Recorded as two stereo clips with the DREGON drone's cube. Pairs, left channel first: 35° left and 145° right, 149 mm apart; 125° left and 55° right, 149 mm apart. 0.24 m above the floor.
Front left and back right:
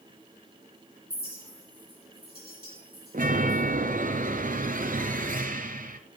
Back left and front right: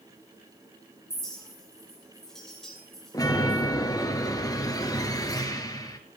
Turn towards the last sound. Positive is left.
turn(degrees=-170)